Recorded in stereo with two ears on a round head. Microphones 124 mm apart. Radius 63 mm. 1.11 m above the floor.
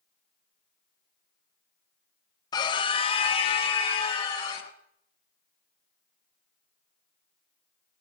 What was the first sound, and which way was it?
A scream, 30° left (ahead or behind).